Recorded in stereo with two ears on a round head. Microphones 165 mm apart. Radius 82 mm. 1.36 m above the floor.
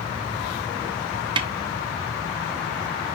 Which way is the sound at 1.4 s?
25° right (ahead or behind).